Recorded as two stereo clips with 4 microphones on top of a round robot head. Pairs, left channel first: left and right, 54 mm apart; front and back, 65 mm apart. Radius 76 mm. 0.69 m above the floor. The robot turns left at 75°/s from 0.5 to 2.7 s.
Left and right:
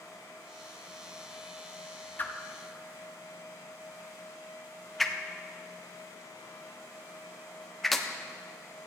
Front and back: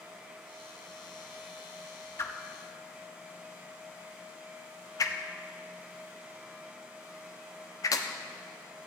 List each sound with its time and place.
2.2 s a whoosh: 40° left, 1.2 m; by 8.1 s straight ahead, 1.2 m